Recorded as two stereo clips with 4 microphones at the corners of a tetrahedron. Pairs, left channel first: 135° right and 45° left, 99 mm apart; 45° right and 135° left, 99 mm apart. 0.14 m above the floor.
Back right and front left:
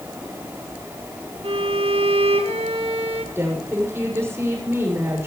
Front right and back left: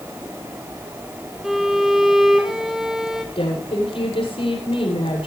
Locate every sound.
1.4 s a violin: 50° left, 2.0 m
3.4 s a woman speaking: 20° right, 8 m